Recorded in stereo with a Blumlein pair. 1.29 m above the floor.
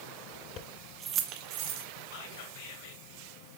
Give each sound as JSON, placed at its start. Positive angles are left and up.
{"t": 0.6, "sound": "keys jangling", "azimuth_deg": 35, "distance_m": 0.6}
{"t": 2.1, "sound": "whispering", "azimuth_deg": 50, "distance_m": 1.7}